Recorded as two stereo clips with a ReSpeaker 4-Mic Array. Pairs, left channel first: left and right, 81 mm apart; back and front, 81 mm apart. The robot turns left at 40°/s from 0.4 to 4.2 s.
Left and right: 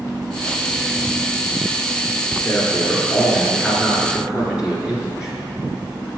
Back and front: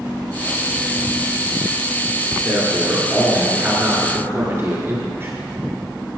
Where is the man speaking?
50° left, 1.7 m; by 5.4 s 20° right, 1.7 m.